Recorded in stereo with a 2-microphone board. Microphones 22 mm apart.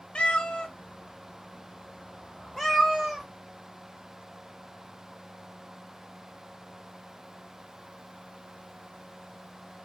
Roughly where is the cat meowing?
Left.